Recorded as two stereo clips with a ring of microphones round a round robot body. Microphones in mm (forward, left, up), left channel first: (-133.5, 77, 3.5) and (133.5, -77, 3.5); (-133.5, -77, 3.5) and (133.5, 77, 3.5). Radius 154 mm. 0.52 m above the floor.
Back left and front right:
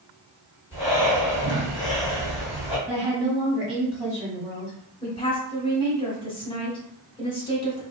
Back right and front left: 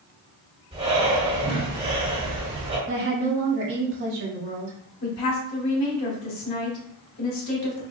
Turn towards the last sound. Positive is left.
turn(degrees=-140)